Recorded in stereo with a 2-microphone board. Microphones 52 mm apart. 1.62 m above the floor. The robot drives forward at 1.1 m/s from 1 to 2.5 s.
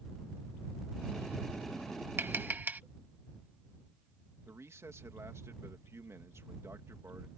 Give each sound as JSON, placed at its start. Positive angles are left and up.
{"t": 2.2, "sound": "tapping", "side_deg": -45}
{"t": 4.5, "sound": "a man speaking", "side_deg": -65}